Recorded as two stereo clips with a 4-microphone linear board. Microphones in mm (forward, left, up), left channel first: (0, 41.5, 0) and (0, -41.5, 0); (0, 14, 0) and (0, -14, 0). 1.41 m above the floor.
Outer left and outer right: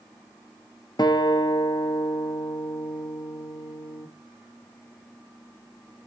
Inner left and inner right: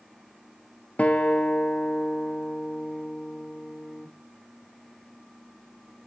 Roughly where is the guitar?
Left.